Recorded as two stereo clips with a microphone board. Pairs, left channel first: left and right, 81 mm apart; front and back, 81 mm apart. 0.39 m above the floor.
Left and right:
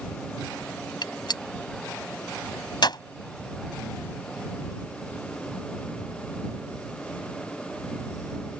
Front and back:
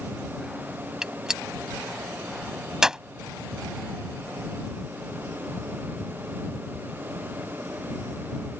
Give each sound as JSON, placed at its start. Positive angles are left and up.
{"t": 1.0, "sound": "a gunshot", "azimuth_deg": 100}